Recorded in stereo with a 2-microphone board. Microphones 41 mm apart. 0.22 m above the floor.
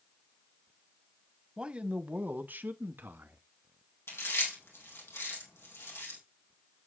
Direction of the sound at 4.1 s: 80° left.